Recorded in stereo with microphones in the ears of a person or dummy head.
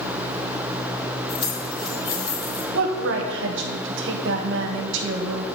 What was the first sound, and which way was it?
Keys jangling, 30° left (ahead or behind).